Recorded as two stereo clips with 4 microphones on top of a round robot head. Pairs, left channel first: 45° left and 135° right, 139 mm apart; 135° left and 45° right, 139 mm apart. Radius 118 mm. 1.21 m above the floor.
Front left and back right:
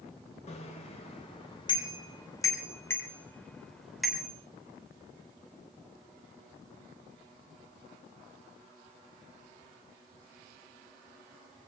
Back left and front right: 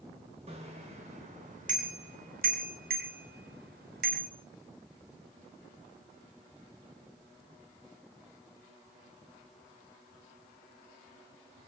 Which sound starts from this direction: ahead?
A bicycle bell, at 0.5 s.